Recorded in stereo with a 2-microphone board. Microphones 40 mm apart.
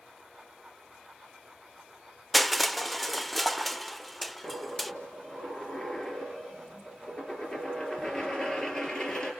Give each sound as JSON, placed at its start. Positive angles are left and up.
{"t": 2.3, "sound": "crushing", "side_deg": 0, "distance_m": 0.5}
{"t": 4.4, "sound": "a dropped coin", "side_deg": 20, "distance_m": 4.0}